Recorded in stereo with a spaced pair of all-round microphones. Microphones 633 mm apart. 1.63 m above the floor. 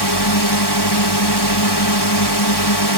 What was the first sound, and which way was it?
A drone, 35° left (ahead or behind).